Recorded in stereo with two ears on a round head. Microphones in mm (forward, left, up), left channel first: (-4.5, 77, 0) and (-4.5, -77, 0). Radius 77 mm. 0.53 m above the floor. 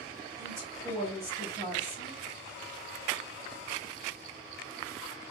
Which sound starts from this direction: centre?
A woman speaking, at 0.4 s.